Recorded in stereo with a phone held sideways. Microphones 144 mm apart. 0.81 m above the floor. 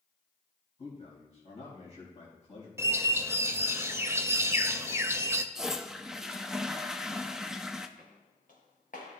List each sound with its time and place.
0.8 s a man speaking: 45° left (ahead or behind), 3.5 m
2.8 s a bird: 20° right (ahead or behind), 0.6 m
5.5 s a toilet flushing: 5° right (ahead or behind), 0.5 m
8.0 s footsteps: 75° left (ahead or behind), 3.5 m; by 9.2 s 65° left (ahead or behind), 3 m